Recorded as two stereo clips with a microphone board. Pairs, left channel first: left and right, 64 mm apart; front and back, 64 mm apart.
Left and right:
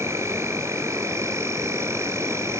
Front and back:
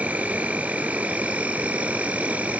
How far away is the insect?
About 0.9 m.